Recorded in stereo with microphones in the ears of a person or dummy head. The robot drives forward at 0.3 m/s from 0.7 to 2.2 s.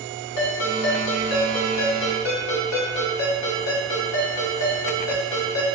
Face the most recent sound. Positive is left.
turn(degrees=60)  # may be behind; listen again after turning